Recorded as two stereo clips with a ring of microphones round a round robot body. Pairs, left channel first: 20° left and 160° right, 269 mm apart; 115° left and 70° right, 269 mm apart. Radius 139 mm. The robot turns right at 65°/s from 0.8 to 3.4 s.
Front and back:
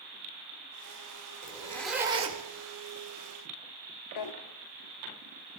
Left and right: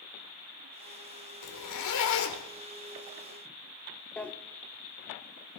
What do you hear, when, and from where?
1.4 s a zipper: 85° left, 1.8 m; by 2.4 s 150° left, 1.8 m
4.2 s a drawer: 25° left, 0.7 m